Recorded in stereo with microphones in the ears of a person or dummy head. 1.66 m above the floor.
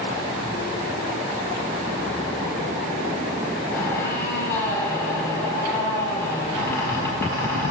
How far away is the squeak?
About 4 m.